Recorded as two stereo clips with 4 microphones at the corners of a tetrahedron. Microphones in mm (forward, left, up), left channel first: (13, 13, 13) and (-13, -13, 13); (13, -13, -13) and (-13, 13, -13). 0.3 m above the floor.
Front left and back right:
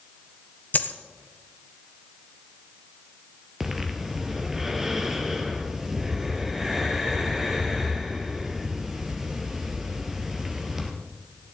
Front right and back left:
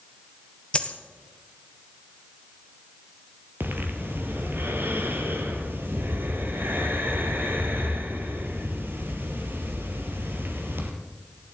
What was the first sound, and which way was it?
A dropped coin, 15° left.